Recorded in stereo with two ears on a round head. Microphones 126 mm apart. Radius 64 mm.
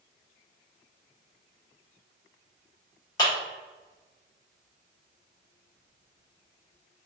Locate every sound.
3.2 s a clap: 30° left (ahead or behind), 1.6 m